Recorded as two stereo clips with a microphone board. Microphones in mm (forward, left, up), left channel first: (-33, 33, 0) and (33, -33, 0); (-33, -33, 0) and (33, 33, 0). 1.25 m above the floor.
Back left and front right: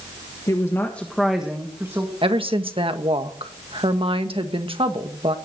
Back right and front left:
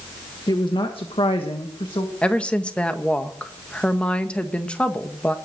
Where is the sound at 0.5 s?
175° right, 1.7 m; by 2.1 s 100° right, 2 m.